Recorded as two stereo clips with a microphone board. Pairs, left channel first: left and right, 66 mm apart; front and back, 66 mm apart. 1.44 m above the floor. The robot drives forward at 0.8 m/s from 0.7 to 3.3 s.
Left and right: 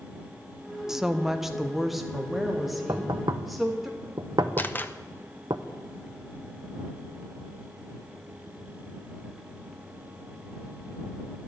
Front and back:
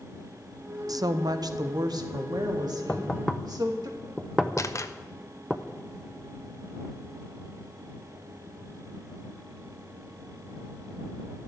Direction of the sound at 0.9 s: 170° right.